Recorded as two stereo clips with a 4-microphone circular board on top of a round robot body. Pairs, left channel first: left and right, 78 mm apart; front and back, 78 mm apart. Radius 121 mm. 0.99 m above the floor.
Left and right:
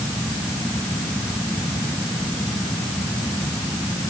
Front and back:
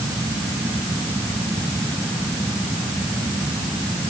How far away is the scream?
I don't hear a scream.